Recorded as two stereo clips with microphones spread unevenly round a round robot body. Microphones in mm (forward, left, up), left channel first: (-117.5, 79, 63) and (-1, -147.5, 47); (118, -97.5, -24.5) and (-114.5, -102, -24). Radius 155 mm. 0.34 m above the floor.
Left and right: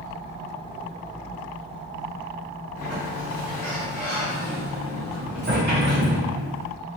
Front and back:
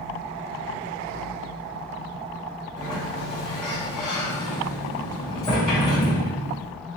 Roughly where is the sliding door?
Ahead right.